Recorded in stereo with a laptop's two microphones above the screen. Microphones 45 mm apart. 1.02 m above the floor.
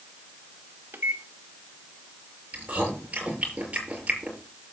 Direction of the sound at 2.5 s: 30° right (ahead or behind).